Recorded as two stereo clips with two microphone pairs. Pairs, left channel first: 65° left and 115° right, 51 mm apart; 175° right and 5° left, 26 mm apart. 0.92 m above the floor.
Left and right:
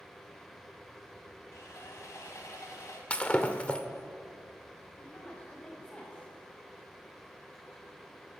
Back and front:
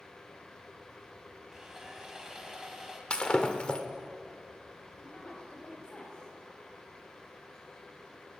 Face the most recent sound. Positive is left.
turn(degrees=130)